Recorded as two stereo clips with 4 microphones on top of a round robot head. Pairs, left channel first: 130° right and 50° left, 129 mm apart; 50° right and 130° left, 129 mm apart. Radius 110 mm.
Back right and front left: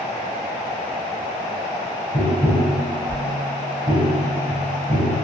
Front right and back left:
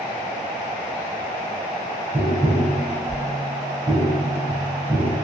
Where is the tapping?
60° left, 0.8 m.